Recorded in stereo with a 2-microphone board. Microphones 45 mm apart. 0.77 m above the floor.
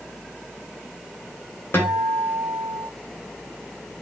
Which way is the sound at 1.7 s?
55° left (ahead or behind).